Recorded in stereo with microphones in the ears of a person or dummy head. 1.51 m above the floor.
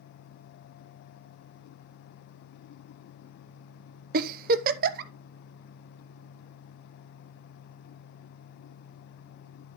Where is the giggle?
50° right (ahead or behind), 0.7 m.